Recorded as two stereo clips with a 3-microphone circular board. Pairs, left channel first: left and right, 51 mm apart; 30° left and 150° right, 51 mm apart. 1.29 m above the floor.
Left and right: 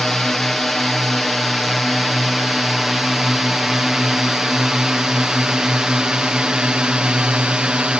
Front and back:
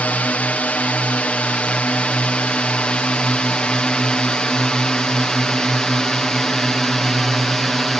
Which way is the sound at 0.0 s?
10° left.